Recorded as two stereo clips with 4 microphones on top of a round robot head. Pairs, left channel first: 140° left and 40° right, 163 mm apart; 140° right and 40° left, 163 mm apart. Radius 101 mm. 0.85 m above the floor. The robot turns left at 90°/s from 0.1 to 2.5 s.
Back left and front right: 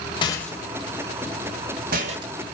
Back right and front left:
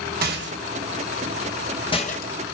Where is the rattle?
75° left, 3 m; by 2.3 s 115° right, 3 m.